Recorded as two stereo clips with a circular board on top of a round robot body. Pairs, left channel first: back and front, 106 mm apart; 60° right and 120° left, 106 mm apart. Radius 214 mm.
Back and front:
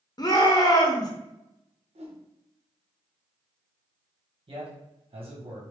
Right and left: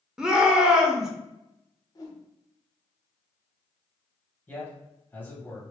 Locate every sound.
0.2 s a shout: 160° right, 1.0 m
1.9 s a whoosh: 5° right, 0.9 m
4.5 s a man speaking: 10° left, 1.7 m